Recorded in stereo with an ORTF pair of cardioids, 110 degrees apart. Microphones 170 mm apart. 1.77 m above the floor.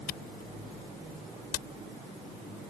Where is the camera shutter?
70° left.